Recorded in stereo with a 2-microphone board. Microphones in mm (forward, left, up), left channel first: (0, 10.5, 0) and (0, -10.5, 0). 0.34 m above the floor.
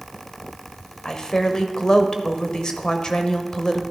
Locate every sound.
1.1 s a woman speaking: 40° left (ahead or behind), 1.0 m